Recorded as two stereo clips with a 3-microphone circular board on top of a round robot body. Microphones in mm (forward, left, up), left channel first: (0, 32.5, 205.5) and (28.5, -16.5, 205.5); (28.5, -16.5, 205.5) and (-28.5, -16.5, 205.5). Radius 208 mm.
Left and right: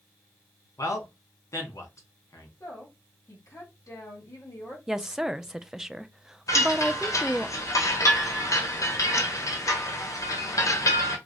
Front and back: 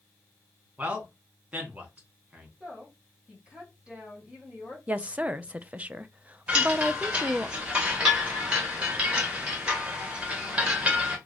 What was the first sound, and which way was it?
A man speaking, 120° left.